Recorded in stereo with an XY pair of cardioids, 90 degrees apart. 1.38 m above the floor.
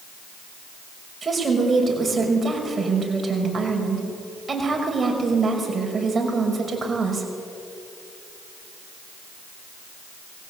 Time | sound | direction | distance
1.2 | a woman speaking | 35° right | 5.5 m